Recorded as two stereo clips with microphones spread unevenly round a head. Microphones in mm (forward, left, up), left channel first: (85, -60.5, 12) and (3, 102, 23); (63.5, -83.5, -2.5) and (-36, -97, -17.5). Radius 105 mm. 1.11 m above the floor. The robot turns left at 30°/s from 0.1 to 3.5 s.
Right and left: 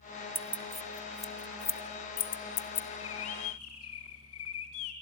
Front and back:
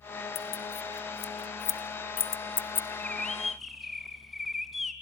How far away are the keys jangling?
About 0.9 m.